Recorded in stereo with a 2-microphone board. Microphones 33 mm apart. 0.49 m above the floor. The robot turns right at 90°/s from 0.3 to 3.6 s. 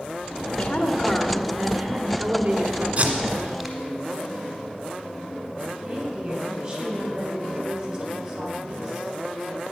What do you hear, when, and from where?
0.5 s a woman speaking: 120° left, 1.2 m; by 2.9 s 30° right, 1.2 m
3.0 s tape being pulled: 45° right (ahead or behind), 1.5 m; by 3.8 s 5° left (ahead or behind), 1.5 m
5.8 s a woman speaking: 10° right (ahead or behind), 3.5 m